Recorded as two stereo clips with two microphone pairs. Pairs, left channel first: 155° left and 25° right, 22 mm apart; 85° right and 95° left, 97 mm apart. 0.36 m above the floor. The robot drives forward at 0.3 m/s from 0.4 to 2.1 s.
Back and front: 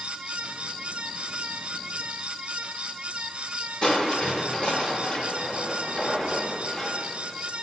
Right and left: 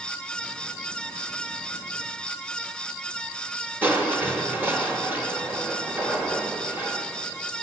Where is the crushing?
150° left, 1.0 m.